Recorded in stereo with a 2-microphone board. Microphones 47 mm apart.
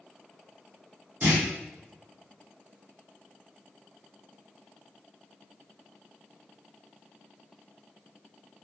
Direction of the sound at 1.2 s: 45° right (ahead or behind).